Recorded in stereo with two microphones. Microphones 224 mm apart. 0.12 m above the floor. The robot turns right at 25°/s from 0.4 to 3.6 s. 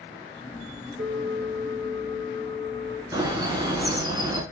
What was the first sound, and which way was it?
A bell, straight ahead.